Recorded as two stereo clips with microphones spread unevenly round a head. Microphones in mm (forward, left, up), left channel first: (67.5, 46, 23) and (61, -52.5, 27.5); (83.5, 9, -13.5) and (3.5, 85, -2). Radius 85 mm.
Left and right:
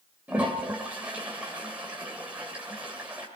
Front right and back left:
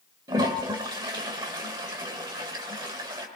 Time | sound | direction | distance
0.3 | a toilet flushing | 170° right | 1.8 m